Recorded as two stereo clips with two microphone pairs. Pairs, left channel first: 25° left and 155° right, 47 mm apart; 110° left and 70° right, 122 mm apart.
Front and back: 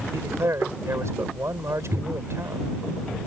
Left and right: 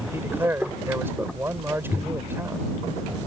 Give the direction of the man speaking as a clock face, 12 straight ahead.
5 o'clock.